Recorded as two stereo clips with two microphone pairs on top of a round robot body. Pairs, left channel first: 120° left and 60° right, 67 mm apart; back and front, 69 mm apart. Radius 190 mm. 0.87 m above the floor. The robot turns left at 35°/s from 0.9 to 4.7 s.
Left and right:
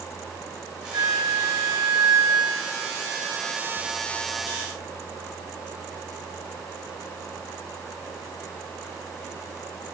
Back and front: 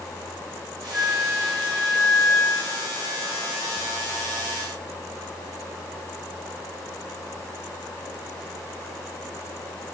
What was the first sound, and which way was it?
A flute, 70° right.